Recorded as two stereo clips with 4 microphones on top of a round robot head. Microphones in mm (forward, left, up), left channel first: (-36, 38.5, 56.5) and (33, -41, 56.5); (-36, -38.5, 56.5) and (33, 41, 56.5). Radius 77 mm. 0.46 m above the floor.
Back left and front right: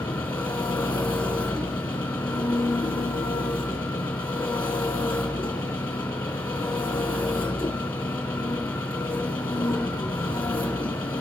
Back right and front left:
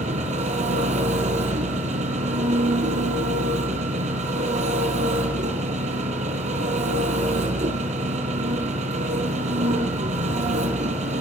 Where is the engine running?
55° left, 4 m.